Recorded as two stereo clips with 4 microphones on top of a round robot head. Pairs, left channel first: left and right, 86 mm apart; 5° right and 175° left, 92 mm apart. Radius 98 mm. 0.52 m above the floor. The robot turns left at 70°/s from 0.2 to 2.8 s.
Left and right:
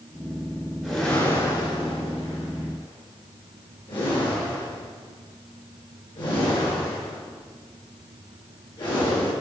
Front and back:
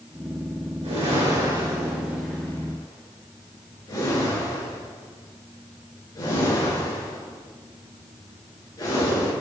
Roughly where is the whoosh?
Behind.